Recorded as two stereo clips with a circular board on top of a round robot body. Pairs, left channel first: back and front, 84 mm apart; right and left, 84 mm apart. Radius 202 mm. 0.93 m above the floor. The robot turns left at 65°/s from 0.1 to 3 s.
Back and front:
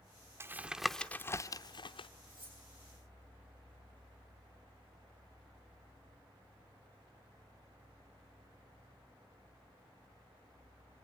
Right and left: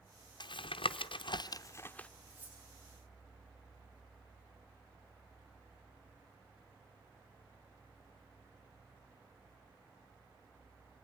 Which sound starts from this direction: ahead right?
Tapping, at 0.4 s.